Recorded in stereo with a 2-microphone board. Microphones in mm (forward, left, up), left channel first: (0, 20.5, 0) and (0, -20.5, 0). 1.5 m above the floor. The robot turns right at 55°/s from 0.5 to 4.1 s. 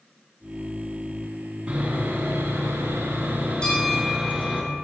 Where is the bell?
20° left (ahead or behind), 3 m; by 4.8 s 45° left (ahead or behind), 3 m.